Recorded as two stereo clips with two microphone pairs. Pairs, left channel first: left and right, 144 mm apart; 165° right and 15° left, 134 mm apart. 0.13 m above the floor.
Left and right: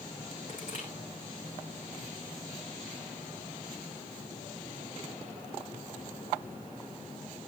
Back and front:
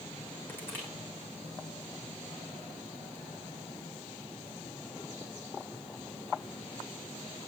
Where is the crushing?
120° left, 7.5 m.